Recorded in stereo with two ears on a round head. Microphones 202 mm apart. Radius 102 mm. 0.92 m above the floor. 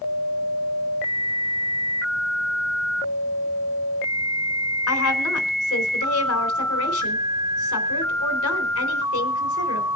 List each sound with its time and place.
4.9 s a woman speaking: 65° left (ahead or behind), 3.5 m